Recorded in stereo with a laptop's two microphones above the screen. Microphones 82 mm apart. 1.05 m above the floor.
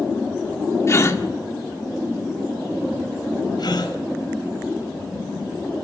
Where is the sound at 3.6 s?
60° left (ahead or behind), 4 m.